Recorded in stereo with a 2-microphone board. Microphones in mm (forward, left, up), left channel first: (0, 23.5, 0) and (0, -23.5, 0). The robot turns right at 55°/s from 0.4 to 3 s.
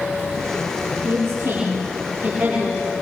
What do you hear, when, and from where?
1.0 s a woman speaking: 70° right (ahead or behind), 7.5 m; by 2.9 s 5° right (ahead or behind), 7.5 m